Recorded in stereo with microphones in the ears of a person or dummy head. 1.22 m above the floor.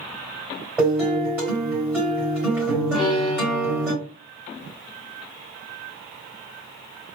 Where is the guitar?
5° right (ahead or behind), 2.5 m.